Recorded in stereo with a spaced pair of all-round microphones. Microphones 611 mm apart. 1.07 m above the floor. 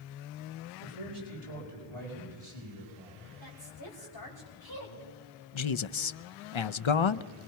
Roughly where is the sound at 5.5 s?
Left.